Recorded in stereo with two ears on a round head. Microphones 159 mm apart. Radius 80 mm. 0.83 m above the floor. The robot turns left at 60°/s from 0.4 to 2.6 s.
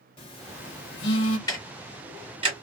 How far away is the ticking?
About 1.3 m.